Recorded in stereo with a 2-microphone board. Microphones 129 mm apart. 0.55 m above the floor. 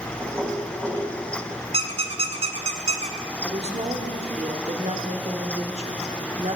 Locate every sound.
0.2 s knocking: 20° right (ahead or behind), 1.9 m
1.7 s a squeak: 55° right (ahead or behind), 1.1 m
3.4 s a woman speaking: 55° right (ahead or behind), 1.1 m